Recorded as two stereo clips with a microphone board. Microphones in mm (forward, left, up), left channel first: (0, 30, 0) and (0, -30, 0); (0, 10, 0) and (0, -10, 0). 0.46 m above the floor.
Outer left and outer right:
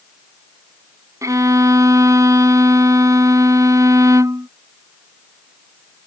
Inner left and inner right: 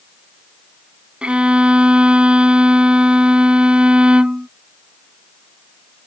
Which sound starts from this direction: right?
A violin, at 1.2 s.